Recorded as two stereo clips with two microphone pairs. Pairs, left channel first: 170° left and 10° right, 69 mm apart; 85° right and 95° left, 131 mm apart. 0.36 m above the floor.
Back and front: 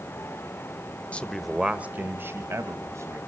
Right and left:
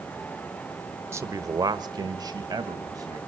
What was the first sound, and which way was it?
A man speaking, 125° left.